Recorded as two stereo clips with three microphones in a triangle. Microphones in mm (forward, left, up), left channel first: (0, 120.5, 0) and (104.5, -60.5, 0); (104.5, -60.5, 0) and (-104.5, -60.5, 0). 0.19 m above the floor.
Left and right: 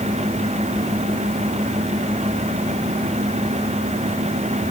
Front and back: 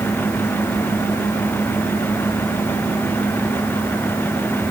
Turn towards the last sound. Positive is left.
No sound to turn to.